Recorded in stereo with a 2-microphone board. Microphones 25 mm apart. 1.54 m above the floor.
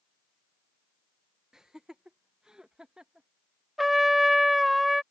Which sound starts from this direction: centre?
A trumpet, at 3.8 s.